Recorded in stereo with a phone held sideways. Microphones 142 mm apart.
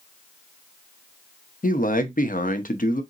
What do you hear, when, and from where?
1.6 s a man speaking: 75° left (ahead or behind), 0.7 m